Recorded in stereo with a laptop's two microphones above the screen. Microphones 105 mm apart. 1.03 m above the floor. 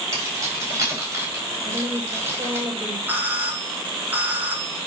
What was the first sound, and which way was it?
Keys jangling, 30° right (ahead or behind).